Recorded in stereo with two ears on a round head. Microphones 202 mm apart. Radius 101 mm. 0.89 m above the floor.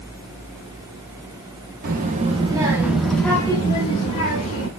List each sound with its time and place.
1.8 s a child speaking: 40° right (ahead or behind), 0.9 m; by 4.7 s 35° left (ahead or behind), 1.5 m